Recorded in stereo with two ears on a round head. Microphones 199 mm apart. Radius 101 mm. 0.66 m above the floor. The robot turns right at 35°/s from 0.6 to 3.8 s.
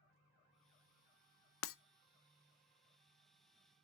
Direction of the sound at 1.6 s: 65° left (ahead or behind).